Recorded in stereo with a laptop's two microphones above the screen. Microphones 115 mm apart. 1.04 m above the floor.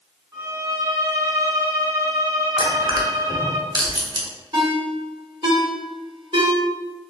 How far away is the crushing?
About 0.8 m.